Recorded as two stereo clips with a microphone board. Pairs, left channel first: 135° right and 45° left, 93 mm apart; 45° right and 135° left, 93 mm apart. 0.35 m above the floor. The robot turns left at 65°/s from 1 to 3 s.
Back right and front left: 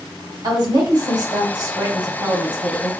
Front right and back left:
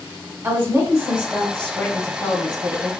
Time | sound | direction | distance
0.4 | a woman speaking | 75° left | 2.0 m